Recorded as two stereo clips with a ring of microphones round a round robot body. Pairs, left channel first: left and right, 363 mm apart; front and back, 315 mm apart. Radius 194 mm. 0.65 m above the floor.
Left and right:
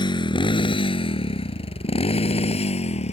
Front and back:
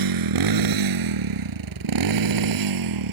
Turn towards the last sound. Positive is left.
turn(degrees=165)